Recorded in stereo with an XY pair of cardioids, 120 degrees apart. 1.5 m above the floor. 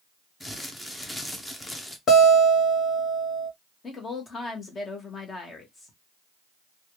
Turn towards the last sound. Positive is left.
turn(degrees=35)